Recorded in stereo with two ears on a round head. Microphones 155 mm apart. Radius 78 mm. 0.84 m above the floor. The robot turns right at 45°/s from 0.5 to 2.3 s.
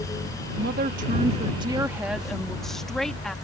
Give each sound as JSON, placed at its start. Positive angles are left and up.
{"t": 0.6, "sound": "a woman speaking", "azimuth_deg": -75}